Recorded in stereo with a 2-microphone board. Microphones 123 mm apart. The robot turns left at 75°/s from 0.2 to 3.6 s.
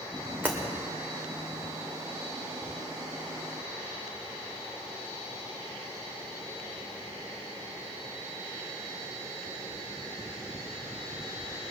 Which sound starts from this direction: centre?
Breaking glass, at 0.4 s.